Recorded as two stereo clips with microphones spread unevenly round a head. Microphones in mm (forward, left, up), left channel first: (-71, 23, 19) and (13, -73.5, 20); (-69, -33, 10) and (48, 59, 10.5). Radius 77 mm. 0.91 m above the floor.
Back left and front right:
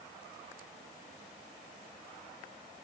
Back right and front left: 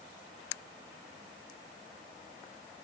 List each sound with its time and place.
Only background noise.